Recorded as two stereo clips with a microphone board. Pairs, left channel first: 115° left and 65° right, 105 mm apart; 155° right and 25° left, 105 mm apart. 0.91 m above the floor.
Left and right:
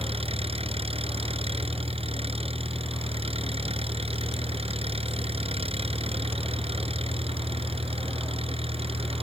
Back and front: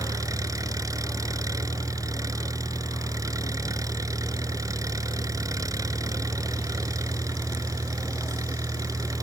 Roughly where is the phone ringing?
I don't hear a phone ringing.